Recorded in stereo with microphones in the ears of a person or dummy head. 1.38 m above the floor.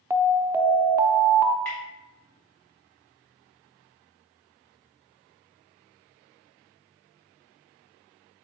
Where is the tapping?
5° left (ahead or behind), 2 m.